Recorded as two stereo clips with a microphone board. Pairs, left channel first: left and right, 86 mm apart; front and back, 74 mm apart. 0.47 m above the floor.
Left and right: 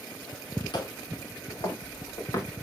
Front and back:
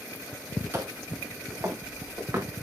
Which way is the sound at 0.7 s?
120° left.